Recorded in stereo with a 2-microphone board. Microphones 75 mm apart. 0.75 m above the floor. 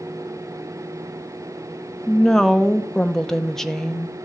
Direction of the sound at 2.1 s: 5° left (ahead or behind).